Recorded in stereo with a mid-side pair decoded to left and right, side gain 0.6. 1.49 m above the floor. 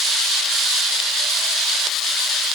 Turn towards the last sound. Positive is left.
No sound to turn to.